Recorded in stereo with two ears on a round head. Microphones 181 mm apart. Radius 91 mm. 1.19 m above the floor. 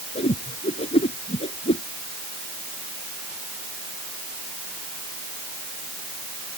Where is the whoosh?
30° left (ahead or behind).